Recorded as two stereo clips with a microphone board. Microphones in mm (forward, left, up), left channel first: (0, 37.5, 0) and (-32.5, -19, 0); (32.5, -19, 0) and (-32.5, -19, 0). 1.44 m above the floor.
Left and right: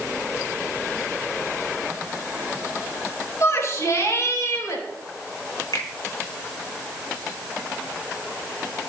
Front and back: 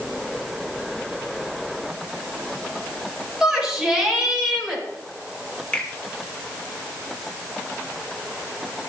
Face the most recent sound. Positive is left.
turn(degrees=80)